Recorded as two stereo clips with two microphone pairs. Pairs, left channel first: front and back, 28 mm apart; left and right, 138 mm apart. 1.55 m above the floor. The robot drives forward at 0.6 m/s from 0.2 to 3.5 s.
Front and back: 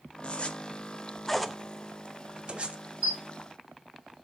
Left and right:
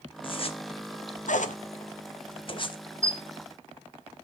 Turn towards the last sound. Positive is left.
turn(degrees=-160)